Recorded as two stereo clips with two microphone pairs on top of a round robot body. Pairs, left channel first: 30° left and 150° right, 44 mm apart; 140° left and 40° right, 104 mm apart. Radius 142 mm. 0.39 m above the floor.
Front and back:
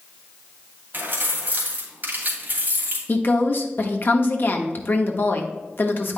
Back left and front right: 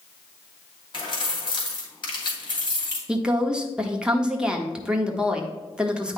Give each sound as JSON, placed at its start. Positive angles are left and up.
{"t": 0.9, "sound": "keys jangling", "azimuth_deg": 175, "distance_m": 2.5}
{"t": 3.1, "sound": "a woman speaking", "azimuth_deg": 40, "distance_m": 1.2}